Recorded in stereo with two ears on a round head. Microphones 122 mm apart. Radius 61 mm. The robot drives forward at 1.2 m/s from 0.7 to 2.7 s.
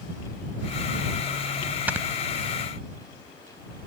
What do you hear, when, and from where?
1.9 s snoring: 10° right (ahead or behind); by 2.1 s 15° right (ahead or behind)